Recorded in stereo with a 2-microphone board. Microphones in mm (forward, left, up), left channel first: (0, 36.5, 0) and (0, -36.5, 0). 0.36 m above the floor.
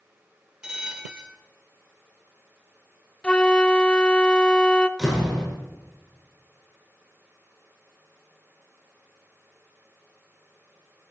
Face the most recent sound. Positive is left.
turn(degrees=-5)  # may be behind; listen again after turning